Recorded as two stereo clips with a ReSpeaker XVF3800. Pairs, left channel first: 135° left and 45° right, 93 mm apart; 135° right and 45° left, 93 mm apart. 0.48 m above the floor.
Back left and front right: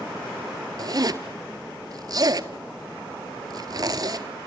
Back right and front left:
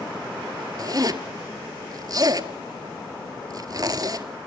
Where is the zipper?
Straight ahead, 1.4 m.